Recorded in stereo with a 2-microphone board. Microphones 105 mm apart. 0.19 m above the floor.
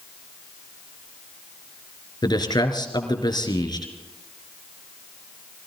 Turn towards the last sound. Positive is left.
turn(degrees=45)  # may be behind; listen again after turning